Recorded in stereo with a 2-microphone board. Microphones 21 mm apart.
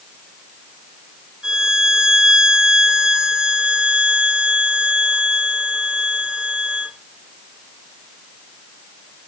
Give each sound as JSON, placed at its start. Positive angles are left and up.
{"t": 1.4, "sound": "a violin", "side_deg": -35, "distance_m": 2.0}